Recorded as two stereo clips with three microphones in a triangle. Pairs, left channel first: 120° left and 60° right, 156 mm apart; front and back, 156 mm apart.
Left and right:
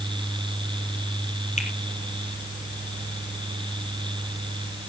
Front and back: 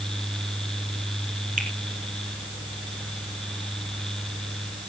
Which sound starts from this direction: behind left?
A finger snap, at 1.6 s.